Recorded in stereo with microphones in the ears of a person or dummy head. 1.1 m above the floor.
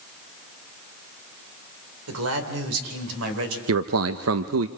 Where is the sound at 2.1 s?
85° right, 3 m; by 3.6 s 80° right, 4 m.